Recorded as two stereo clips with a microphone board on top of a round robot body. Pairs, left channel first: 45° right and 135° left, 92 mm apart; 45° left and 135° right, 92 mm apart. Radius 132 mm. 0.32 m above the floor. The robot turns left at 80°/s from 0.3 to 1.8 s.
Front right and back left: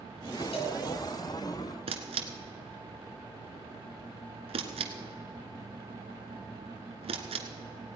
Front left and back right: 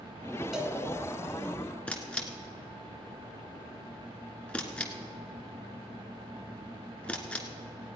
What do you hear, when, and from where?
0.5 s a cowbell: 50° right, 1.8 m; by 0.8 s 70° right, 1.8 m
1.9 s a camera shutter: 125° left, 1.4 m